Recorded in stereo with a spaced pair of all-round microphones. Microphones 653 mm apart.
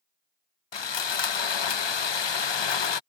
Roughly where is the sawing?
Left.